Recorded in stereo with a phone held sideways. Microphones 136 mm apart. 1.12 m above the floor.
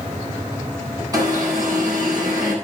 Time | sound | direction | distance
1.1 | an alarm | 25° right (ahead or behind) | 8.5 m